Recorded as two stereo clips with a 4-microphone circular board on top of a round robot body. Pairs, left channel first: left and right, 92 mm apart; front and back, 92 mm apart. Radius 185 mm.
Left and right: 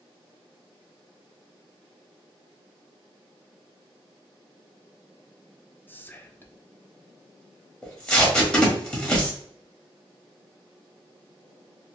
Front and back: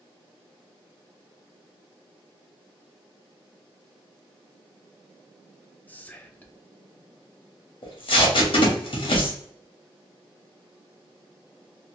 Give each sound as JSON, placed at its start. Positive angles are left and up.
{"t": 5.9, "sound": "whispering", "azimuth_deg": 50, "distance_m": 0.7}
{"t": 7.8, "sound": "tape being pulled", "azimuth_deg": 10, "distance_m": 1.4}